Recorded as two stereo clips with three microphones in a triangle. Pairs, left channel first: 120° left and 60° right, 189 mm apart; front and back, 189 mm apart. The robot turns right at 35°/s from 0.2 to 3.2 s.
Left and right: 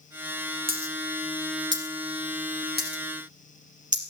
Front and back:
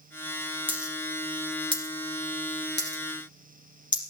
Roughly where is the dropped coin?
Right.